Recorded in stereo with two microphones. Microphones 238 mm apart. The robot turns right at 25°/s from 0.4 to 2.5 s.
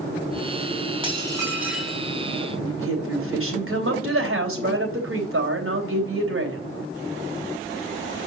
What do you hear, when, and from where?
1.0 s dishes clattering: 20° right (ahead or behind), 3.5 m; by 2.0 s 5° left (ahead or behind), 3.5 m
2.6 s a woman speaking: 60° right (ahead or behind), 3 m